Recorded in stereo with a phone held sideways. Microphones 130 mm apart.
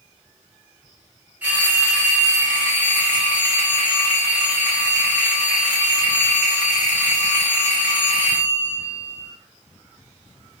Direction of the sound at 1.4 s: 15° right (ahead or behind).